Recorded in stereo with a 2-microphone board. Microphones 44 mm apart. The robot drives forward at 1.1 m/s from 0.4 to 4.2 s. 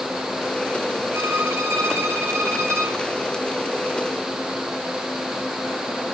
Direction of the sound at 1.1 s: 70° right (ahead or behind).